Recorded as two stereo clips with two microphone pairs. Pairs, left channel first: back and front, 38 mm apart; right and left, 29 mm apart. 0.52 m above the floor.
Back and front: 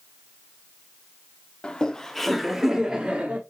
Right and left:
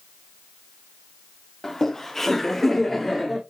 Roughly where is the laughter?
Behind right.